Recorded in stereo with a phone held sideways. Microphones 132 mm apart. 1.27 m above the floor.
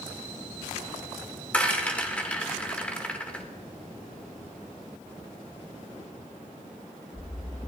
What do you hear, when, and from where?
1.5 s a rattle: 10° left (ahead or behind), 2 m